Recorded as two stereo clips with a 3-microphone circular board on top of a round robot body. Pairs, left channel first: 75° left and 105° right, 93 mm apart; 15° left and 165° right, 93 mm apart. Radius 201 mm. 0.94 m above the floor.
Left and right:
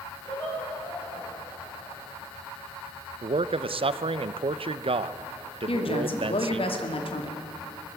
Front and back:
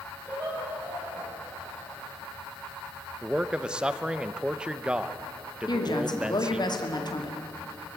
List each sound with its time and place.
0.2 s laughter: 125° left, 9.5 m
3.2 s a man speaking: 85° right, 0.7 m
5.7 s a woman speaking: 60° left, 2.5 m